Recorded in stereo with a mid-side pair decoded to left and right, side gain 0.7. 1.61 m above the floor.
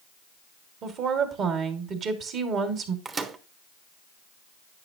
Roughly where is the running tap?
I don't hear a running tap.